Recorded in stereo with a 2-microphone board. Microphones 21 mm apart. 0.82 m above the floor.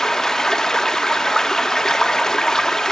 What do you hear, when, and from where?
0.0 s running water: 25° left (ahead or behind), 1.2 m